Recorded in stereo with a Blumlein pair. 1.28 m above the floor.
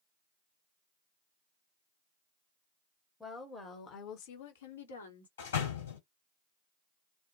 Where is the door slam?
60° left, 1.4 m.